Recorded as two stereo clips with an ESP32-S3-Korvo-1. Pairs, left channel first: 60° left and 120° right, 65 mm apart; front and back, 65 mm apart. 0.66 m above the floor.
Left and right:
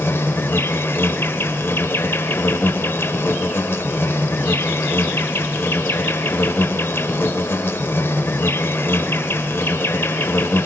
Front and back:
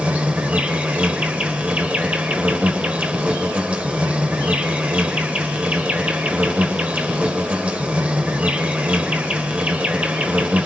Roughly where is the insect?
Left.